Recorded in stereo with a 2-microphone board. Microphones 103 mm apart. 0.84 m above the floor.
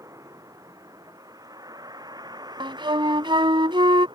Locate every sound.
0.0 s a vehicle: 30° right (ahead or behind); by 4.2 s 45° right (ahead or behind)
2.6 s a flute: 55° right (ahead or behind)